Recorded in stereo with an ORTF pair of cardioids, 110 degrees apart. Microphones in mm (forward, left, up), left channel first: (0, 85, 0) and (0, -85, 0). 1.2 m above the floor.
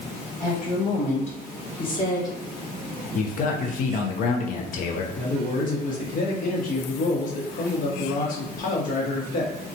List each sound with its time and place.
0.4 s a woman speaking: 60° left, 1.7 m; by 2.4 s 20° left, 1.1 m
3.1 s a man speaking: 55° left, 0.7 m
5.2 s a man speaking: 55° left, 1.1 m